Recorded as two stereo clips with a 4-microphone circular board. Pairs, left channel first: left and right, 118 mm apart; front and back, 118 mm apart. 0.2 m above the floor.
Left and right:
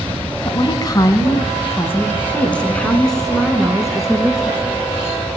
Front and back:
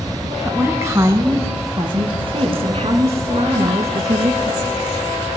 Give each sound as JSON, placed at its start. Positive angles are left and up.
{"t": 0.5, "sound": "a woman speaking", "azimuth_deg": 110, "distance_m": 1.6}